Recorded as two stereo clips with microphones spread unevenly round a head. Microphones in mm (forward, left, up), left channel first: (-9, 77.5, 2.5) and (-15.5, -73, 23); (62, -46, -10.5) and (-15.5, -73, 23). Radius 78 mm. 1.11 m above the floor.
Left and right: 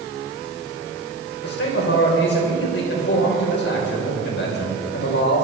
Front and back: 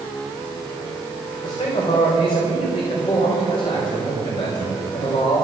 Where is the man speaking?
70° left, 4.5 m.